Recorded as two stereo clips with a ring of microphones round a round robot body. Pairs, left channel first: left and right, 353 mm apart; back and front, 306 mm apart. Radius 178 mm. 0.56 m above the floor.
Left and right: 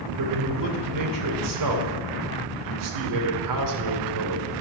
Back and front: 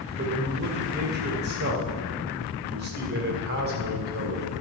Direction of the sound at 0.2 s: 60° right.